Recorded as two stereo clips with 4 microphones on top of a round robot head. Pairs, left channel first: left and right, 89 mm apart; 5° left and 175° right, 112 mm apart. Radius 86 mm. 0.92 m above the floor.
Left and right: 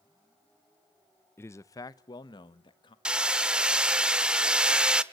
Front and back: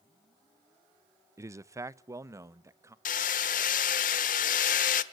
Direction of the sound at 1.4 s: 135° left.